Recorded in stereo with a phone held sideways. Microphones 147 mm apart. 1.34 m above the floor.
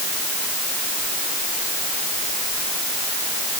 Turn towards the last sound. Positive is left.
No sound to turn to.